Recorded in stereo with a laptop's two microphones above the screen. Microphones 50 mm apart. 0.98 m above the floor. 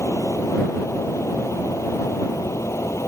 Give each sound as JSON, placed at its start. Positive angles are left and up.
{"t": 0.0, "sound": "a fan", "side_deg": 70}